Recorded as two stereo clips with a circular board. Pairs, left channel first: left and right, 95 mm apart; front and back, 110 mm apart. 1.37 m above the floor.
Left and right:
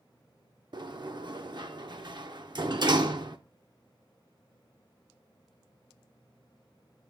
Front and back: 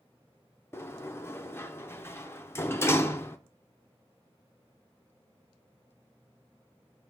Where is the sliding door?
65° right, 0.6 m.